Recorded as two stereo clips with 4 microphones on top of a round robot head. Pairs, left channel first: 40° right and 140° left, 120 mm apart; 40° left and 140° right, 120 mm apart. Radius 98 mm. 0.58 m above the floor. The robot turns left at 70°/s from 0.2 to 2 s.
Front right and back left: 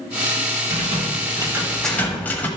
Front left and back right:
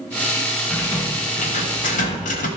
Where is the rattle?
125° left, 1.2 m; by 2.5 s 35° left, 1.2 m.